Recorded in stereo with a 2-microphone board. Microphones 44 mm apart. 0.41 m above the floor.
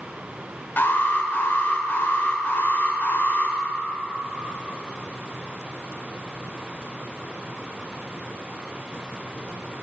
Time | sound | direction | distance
0.8 | an alarm | 45° left (ahead or behind) | 0.9 m